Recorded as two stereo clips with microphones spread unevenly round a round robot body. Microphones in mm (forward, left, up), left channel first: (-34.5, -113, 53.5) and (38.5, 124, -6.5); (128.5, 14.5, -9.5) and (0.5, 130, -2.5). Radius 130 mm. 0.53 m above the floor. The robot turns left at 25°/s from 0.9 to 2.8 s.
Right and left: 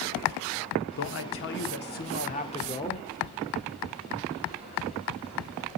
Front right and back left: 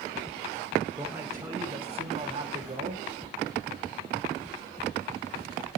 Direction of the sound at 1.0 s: 140° right.